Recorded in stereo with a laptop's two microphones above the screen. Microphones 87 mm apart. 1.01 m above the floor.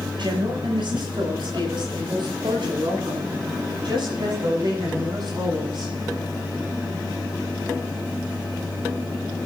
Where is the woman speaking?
75° right (ahead or behind), 6 m; by 5.9 s 65° right (ahead or behind), 13 m.